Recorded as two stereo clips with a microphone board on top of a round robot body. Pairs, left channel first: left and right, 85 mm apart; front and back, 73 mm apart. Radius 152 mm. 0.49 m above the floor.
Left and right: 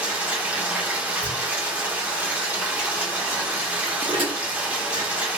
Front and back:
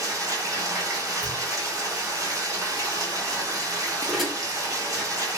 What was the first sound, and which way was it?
Running water, 155° right.